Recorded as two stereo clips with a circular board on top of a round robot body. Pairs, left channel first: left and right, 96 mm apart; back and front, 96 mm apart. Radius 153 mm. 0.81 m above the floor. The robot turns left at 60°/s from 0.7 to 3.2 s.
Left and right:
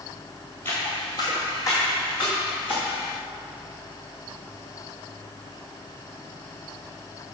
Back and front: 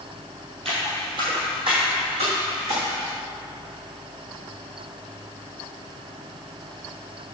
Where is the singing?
No singing in this recording.